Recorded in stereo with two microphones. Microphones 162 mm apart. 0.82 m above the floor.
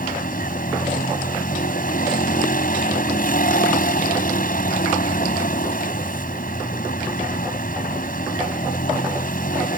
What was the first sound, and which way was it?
A vehicle, 65° left (ahead or behind).